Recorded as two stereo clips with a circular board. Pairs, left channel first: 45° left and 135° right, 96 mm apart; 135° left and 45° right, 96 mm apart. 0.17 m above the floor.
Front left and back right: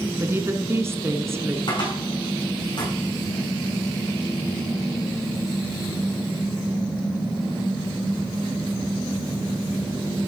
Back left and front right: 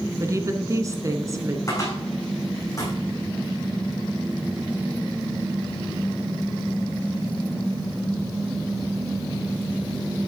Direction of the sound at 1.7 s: 80° left.